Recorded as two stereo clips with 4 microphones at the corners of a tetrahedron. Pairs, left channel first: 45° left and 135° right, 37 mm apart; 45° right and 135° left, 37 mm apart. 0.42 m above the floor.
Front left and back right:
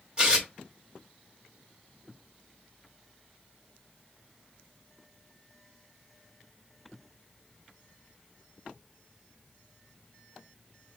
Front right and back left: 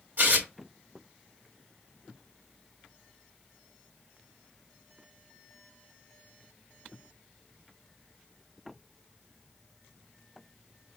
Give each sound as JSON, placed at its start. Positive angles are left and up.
{"t": 0.2, "sound": "tearing paper", "azimuth_deg": 165, "distance_m": 1.7}